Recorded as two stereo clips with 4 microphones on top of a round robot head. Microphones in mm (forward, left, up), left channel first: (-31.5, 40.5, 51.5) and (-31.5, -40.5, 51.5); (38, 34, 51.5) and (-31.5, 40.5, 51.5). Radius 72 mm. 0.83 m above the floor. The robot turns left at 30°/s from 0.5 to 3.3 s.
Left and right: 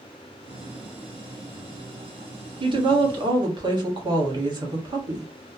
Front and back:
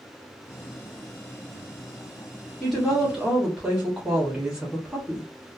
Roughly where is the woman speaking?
Right.